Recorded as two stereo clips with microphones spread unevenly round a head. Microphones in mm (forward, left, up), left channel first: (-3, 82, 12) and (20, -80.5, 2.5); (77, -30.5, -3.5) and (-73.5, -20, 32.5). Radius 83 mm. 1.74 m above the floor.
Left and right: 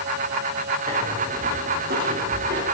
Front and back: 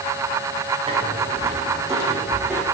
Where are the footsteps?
130° right, 5 m; by 2.6 s 105° right, 3.5 m.